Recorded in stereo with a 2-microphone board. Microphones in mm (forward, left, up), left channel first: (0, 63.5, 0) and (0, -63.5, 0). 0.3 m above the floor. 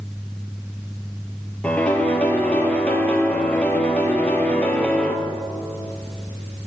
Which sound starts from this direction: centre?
A piano, at 1.6 s.